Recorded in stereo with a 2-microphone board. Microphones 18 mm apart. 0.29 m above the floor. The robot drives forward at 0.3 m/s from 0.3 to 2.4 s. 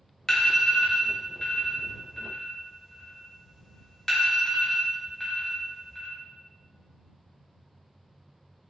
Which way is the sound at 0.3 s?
30° left (ahead or behind).